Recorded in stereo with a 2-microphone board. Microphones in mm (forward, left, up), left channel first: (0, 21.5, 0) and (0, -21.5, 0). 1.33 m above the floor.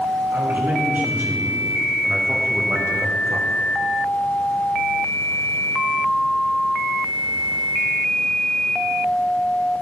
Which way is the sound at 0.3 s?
50° right (ahead or behind).